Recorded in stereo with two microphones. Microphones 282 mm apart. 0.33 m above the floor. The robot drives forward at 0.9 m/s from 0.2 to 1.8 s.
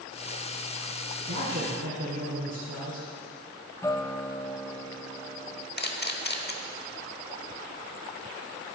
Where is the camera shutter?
35° left (ahead or behind), 0.9 m.